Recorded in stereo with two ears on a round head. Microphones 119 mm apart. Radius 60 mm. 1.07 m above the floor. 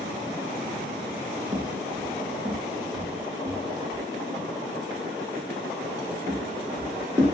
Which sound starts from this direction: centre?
Footsteps, at 1.5 s.